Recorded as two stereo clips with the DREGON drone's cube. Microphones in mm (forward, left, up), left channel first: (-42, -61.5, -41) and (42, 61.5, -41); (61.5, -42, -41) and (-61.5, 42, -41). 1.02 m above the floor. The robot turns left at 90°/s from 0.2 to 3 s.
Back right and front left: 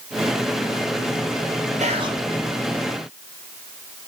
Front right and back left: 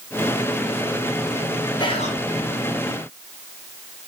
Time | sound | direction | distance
1.8 | whispering | 25° left | 0.7 m